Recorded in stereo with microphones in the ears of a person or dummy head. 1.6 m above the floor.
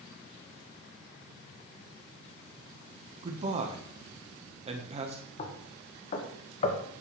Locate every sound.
3.2 s a man speaking: 30° right (ahead or behind), 1.5 m
5.4 s knocking: 45° left (ahead or behind), 1.4 m